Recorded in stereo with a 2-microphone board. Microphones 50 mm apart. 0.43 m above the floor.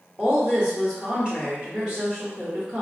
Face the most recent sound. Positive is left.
turn(degrees=-20)  # may be behind; listen again after turning